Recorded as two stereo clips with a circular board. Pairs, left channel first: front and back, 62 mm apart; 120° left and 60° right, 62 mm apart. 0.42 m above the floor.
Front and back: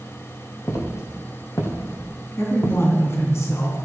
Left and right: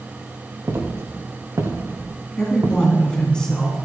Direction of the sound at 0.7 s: 25° right.